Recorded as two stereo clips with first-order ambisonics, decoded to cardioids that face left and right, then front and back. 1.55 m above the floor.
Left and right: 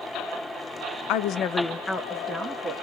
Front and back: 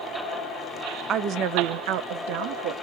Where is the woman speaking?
120° left, 0.5 m; by 2.7 s 165° right, 0.9 m.